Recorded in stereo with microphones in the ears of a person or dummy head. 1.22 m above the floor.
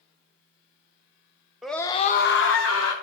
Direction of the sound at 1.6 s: 5° left (ahead or behind).